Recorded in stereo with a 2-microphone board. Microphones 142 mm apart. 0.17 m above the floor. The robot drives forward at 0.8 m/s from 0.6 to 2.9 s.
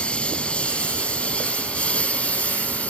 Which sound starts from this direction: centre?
A lawn mower, at 0.0 s.